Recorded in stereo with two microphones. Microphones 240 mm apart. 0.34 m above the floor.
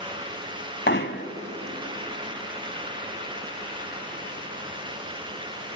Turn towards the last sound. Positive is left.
turn(degrees=50)  # may be behind; listen again after turning